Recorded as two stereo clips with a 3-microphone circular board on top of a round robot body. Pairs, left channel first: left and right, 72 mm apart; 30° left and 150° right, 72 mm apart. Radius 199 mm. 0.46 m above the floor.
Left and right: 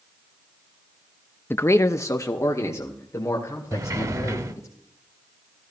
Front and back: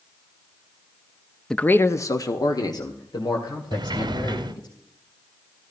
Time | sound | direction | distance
1.5 | a man speaking | 105° left | 0.7 m
3.7 | a sliding door | 135° right | 1.1 m